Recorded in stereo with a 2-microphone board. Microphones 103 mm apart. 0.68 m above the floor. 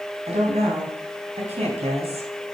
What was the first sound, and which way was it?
A woman speaking, 75° right (ahead or behind).